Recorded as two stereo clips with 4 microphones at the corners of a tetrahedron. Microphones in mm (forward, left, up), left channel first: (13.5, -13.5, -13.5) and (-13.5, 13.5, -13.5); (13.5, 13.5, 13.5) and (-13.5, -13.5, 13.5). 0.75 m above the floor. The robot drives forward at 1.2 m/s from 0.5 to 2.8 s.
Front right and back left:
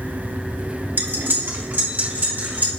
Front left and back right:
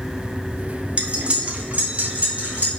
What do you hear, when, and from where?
1.0 s cutlery clinking: 160° left, 0.9 m; by 2.7 s 175° left, 3 m